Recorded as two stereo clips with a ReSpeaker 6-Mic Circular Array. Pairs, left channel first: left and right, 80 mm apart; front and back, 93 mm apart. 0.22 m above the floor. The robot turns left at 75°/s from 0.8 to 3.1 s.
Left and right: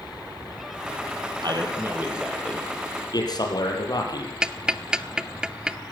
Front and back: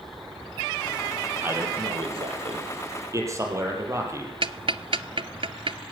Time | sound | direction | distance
1.4 | a man speaking | 110° right | 6 m
4.4 | ticking | 170° right | 0.8 m